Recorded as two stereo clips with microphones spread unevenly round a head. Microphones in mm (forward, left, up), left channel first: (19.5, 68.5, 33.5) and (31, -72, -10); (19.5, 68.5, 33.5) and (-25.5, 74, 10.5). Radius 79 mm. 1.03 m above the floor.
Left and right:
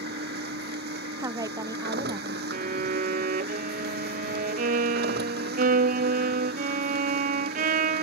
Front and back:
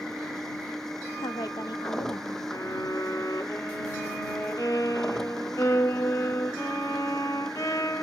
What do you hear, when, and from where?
0.0 s a machine running: 90° right
1.2 s a woman speaking: 25° right
2.5 s a violin: 70° right